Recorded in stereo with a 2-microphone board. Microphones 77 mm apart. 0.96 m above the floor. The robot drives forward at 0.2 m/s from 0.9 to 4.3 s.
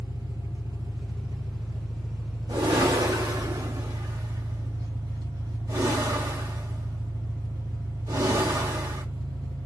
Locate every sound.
0.0 s an engine running: 70° right (ahead or behind), 1.6 m; by 9.7 s 75° right (ahead or behind), 1.5 m
2.5 s a whoosh: 75° right (ahead or behind), 1.4 m; by 9.1 s 65° right (ahead or behind), 1.5 m